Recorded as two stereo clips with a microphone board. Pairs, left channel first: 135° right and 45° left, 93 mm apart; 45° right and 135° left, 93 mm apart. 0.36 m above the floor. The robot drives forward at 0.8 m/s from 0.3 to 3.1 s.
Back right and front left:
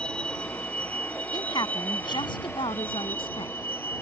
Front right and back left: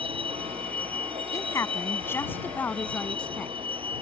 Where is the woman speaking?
95° right; by 3.5 s 120° right.